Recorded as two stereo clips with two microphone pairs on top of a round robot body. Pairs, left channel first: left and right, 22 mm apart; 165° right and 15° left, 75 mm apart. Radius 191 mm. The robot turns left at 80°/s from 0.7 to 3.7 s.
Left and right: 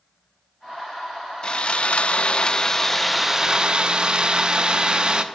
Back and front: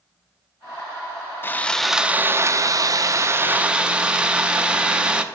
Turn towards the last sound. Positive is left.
turn(degrees=-50)